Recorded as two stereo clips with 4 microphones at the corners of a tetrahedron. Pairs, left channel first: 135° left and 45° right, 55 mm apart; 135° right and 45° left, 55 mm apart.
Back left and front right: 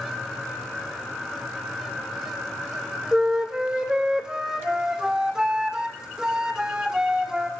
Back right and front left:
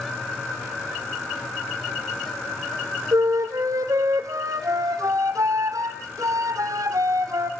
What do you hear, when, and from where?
3.1 s a flute: 35° left, 2 m